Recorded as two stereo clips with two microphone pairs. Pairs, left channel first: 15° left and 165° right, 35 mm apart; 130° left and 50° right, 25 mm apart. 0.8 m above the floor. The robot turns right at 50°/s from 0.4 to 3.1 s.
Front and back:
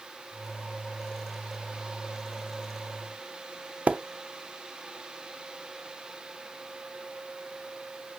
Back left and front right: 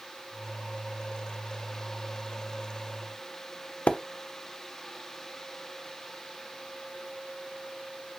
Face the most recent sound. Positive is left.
turn(degrees=155)